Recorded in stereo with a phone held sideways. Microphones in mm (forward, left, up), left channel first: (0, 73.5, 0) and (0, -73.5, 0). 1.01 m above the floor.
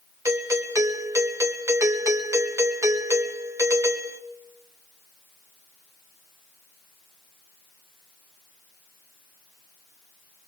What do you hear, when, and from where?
0.2 s a doorbell: 20° right (ahead or behind), 1.5 m